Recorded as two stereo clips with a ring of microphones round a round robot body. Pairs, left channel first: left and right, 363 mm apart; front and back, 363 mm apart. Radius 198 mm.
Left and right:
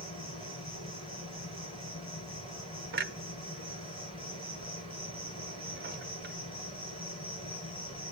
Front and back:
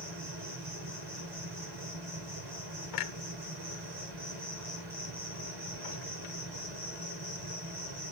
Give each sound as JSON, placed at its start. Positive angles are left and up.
{"t": 0.0, "sound": "an insect", "azimuth_deg": 165, "distance_m": 7.0}
{"t": 2.9, "sound": "a clunk", "azimuth_deg": -30, "distance_m": 0.8}